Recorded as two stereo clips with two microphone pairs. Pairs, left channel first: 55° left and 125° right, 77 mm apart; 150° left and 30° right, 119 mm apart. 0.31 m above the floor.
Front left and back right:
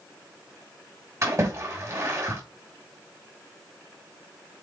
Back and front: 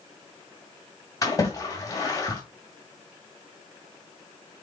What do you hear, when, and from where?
1.2 s a splash: 155° right, 2 m